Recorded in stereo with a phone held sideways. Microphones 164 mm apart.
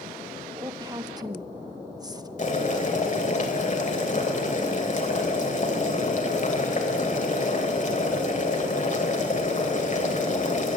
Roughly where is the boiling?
Left.